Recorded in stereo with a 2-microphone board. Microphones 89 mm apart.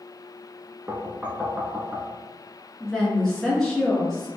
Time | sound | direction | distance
0.9 | knocking | 10° right (ahead or behind) | 0.8 m
2.8 | a woman speaking | 5° left (ahead or behind) | 1.1 m